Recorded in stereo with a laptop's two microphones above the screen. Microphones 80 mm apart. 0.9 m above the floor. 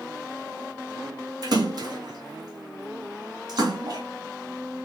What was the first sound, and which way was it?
A splash, 55° right (ahead or behind).